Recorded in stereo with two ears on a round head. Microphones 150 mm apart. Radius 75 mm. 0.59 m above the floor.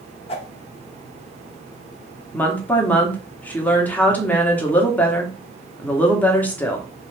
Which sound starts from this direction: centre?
A woman speaking, at 2.3 s.